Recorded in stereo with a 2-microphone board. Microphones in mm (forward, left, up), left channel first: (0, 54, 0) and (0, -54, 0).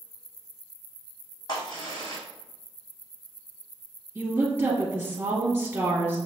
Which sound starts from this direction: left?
A crack, at 1.5 s.